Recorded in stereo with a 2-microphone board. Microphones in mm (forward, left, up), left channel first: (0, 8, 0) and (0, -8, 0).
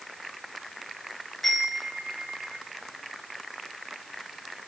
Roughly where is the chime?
Left.